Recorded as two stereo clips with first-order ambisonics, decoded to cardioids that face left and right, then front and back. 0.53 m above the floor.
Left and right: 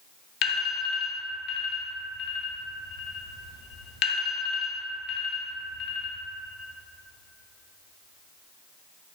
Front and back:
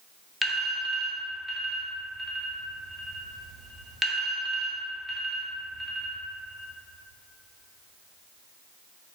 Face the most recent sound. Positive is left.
turn(degrees=100)